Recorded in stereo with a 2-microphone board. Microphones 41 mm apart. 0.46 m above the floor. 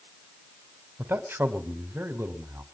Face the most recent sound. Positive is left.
turn(degrees=-70)  # may be behind; listen again after turning